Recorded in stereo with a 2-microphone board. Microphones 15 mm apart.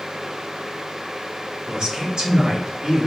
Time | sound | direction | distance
1.7 | a man speaking | 70° right (ahead or behind) | 1.5 m